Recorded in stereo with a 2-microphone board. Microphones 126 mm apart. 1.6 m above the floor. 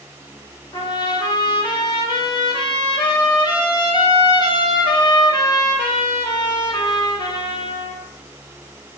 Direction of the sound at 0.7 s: 35° left (ahead or behind).